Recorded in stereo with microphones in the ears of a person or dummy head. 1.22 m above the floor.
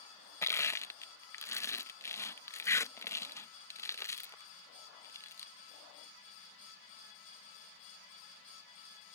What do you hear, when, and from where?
0.4 s crushing: 15° left (ahead or behind)